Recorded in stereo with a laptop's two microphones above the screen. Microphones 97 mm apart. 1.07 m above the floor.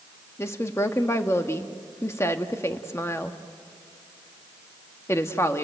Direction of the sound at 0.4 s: 30° left (ahead or behind).